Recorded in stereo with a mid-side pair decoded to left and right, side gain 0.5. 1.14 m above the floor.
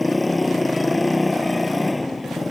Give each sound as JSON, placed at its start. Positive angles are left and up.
{"t": 0.0, "sound": "a motorcycle", "azimuth_deg": 15}